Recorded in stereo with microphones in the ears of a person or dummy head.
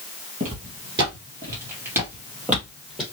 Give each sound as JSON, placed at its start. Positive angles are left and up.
{"t": 0.4, "sound": "footsteps", "side_deg": -25, "distance_m": 1.9}